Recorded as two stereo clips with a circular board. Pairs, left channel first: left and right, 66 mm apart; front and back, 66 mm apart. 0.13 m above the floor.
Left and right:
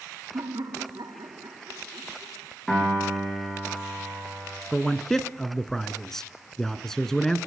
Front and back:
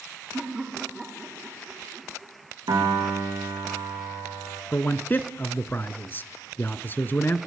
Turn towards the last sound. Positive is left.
turn(degrees=15)